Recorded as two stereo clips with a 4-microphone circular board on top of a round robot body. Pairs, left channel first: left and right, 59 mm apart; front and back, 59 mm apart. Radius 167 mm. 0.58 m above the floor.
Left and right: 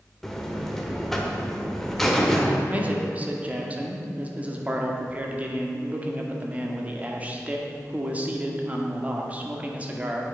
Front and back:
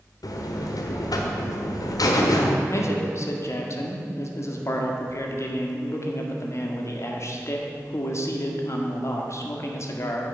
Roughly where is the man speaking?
Ahead right.